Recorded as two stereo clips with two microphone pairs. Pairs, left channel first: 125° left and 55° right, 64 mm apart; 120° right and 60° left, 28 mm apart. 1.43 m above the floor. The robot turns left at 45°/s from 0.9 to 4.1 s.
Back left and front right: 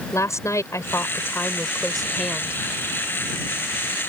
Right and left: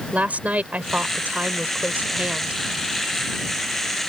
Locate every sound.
0.1 s a woman speaking: 85° left; by 2.6 s 10° left